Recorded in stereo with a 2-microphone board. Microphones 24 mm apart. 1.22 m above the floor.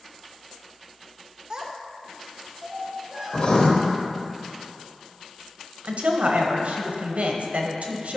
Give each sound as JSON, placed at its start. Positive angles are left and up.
{"t": 1.5, "sound": "a child speaking", "side_deg": -35, "distance_m": 0.5}
{"t": 3.3, "sound": "writing", "side_deg": 55, "distance_m": 1.1}
{"t": 5.8, "sound": "a woman speaking", "side_deg": -75, "distance_m": 1.0}